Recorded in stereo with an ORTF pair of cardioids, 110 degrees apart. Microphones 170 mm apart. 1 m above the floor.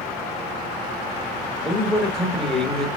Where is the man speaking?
5° left, 1.2 m.